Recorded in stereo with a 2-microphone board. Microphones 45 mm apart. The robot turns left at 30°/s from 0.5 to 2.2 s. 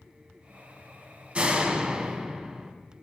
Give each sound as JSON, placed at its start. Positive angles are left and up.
{"t": 1.4, "sound": "a door slam", "side_deg": -25, "distance_m": 1.1}